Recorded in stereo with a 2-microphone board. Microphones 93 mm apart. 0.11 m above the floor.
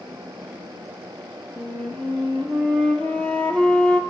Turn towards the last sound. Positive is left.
turn(degrees=10)  # may be behind; listen again after turning